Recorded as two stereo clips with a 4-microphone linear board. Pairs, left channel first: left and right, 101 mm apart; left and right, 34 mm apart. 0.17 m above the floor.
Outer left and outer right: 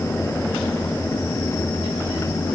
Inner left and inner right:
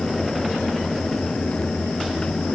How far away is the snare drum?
No snare drum in this recording.